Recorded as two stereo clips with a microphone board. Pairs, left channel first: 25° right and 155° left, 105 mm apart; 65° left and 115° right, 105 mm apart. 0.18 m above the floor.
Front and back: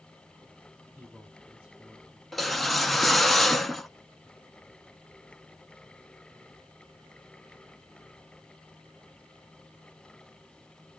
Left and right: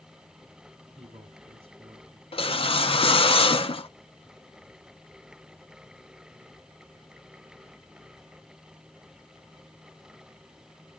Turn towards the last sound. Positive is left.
turn(degrees=65)